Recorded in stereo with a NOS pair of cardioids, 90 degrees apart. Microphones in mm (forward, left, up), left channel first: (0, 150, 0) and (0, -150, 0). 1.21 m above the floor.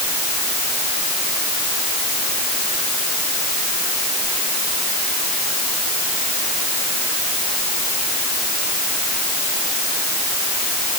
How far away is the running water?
I don't hear running water.